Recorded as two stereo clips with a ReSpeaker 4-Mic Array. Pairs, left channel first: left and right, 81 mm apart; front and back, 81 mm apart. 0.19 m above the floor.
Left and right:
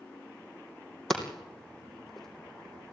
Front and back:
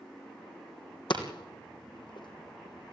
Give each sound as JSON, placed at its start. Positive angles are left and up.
{"t": 1.1, "sound": "hammering", "azimuth_deg": 5, "distance_m": 3.0}